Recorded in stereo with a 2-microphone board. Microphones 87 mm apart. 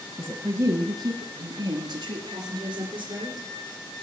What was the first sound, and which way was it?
A woman speaking, 15° right (ahead or behind).